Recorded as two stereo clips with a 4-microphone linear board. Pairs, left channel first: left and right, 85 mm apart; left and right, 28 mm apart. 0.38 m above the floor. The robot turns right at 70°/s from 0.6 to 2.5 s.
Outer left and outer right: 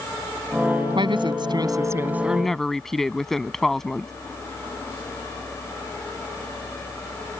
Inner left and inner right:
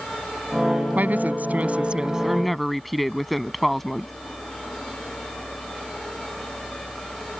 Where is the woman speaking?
105° right; by 4.1 s 5° left.